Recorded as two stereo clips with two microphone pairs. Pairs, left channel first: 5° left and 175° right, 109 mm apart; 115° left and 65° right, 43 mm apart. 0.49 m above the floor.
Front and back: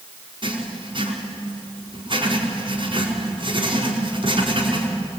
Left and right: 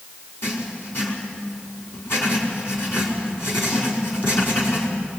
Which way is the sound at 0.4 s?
150° left.